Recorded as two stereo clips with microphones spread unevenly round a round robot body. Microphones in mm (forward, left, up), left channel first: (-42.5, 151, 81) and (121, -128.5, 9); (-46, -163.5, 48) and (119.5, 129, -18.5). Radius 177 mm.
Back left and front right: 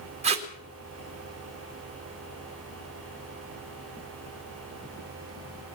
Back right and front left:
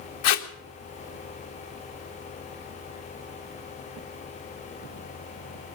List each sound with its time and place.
0.2 s tape being pulled: 120° right, 1.5 m